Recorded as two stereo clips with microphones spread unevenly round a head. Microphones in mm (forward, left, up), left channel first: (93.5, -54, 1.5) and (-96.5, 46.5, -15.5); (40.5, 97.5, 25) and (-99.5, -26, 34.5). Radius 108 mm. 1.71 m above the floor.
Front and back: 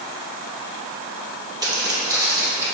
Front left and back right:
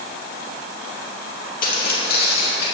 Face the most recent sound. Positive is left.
turn(degrees=70)